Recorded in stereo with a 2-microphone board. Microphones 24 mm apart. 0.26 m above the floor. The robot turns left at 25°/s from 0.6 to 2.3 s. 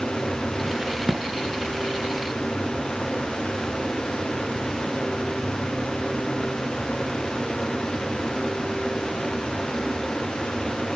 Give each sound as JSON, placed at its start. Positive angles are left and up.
{"t": 0.8, "sound": "a crack", "side_deg": -40, "distance_m": 3.5}